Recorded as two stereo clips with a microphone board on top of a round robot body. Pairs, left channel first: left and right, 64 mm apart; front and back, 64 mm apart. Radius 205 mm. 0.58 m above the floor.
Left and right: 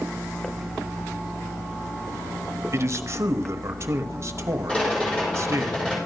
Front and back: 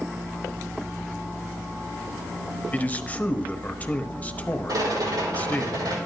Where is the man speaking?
60° right, 1.2 m.